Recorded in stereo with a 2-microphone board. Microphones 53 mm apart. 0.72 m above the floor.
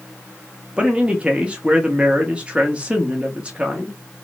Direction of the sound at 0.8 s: 20° right (ahead or behind).